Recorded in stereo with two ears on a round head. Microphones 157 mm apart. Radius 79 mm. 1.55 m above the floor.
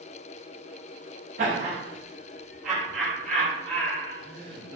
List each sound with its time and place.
1.4 s laughter: 45° right (ahead or behind), 0.9 m; by 4.8 s 25° left (ahead or behind), 1.9 m